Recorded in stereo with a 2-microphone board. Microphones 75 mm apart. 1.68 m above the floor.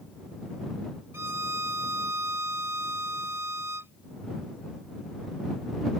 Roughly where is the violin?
Right.